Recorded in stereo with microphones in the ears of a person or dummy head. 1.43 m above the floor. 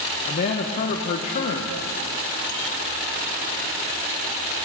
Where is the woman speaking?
40° left (ahead or behind), 0.9 m.